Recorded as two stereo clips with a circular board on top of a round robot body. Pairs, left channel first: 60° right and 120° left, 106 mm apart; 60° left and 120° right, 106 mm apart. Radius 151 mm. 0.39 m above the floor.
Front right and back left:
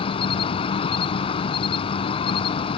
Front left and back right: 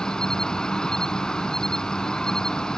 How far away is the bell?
No bell in this recording.